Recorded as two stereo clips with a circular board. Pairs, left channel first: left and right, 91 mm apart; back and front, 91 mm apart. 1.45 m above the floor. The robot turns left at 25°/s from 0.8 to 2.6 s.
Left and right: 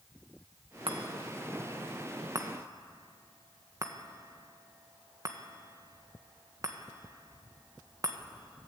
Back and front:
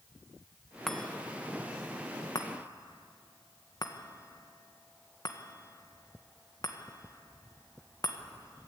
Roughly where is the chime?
Right.